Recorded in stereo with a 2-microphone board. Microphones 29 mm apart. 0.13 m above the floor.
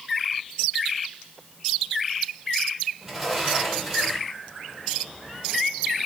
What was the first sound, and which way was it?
A sliding door, 5° left (ahead or behind).